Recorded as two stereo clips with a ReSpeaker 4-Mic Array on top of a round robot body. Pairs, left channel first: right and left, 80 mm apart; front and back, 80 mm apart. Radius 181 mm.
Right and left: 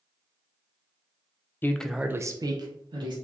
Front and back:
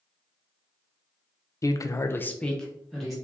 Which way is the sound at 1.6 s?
35° right.